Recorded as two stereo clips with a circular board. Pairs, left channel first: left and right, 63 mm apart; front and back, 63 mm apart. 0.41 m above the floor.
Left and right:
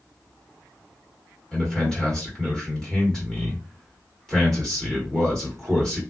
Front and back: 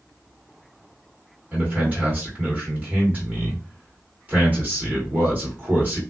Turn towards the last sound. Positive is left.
turn(degrees=155)